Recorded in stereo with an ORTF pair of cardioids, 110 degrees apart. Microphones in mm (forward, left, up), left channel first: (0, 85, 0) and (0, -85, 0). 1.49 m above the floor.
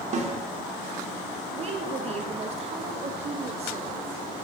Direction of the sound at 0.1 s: 45° right.